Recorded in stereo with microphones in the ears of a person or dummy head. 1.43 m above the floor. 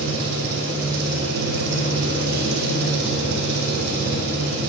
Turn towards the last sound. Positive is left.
turn(degrees=-55)  # may be behind; listen again after turning